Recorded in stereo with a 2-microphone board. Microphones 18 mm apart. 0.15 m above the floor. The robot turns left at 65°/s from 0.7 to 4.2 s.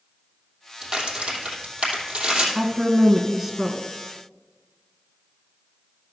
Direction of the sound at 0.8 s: 30° right (ahead or behind).